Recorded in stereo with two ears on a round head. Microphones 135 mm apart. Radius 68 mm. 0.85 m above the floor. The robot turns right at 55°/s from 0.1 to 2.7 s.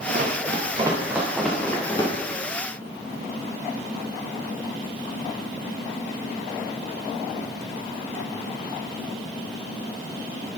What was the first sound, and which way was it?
Running footsteps, 55° right (ahead or behind).